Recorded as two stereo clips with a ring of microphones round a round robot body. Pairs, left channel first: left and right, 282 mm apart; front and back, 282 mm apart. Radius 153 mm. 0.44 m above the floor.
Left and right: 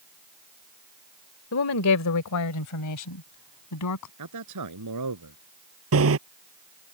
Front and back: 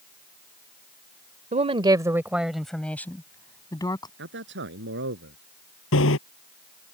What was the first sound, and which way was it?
A woman speaking, 120° left.